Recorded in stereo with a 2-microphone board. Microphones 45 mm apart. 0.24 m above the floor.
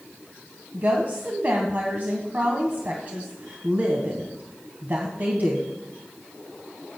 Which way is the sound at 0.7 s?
45° right (ahead or behind).